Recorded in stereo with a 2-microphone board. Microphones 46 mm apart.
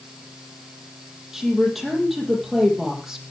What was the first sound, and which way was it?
A woman speaking, 5° right (ahead or behind).